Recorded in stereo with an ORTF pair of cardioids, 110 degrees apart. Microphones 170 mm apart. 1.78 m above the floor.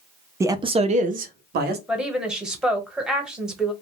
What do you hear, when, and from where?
0.4 s a man speaking: 15° right, 0.5 m; by 1.8 s 70° right, 0.9 m
1.9 s a woman speaking: 5° right, 1.1 m